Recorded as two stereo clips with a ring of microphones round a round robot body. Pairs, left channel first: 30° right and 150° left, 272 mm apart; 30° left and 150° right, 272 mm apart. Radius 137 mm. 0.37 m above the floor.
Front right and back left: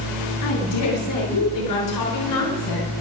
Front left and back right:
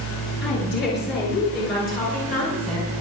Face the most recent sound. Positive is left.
turn(degrees=-40)